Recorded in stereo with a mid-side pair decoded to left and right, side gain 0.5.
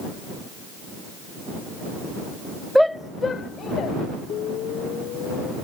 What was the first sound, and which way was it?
A shout, straight ahead.